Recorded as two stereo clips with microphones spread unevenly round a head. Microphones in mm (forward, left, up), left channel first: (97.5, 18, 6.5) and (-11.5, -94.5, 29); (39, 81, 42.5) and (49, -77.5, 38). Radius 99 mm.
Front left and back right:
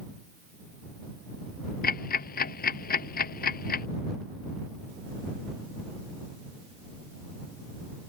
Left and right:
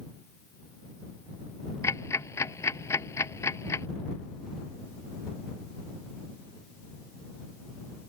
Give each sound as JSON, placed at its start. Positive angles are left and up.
{"t": 1.8, "sound": "ticking", "azimuth_deg": 20}